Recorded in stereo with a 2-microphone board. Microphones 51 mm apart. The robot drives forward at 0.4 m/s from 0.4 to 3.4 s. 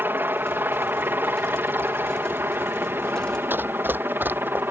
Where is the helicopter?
40° right (ahead or behind); by 4.7 s 45° right (ahead or behind).